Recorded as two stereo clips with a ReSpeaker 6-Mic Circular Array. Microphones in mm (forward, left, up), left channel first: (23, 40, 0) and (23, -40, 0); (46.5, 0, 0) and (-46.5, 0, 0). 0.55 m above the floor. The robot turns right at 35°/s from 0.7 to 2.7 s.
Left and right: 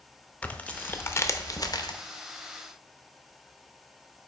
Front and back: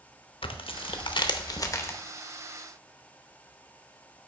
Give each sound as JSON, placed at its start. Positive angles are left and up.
{"t": 0.4, "sound": "tearing paper", "azimuth_deg": 20, "distance_m": 0.6}